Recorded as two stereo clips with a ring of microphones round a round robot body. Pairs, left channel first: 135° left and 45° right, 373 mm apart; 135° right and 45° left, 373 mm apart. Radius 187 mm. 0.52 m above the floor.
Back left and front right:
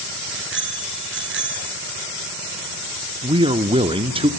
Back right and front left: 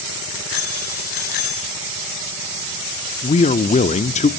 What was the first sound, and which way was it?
A bicycle bell, 105° right.